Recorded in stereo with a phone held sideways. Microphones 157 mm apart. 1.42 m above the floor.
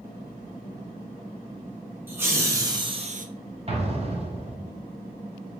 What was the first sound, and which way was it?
Laughter, 15° right (ahead or behind).